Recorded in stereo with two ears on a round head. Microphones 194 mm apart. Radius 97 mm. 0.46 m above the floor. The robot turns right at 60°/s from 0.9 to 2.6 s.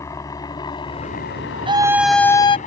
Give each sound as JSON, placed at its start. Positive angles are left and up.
{"t": 0.0, "sound": "a helicopter", "side_deg": 15}
{"t": 1.7, "sound": "a scream", "azimuth_deg": -25}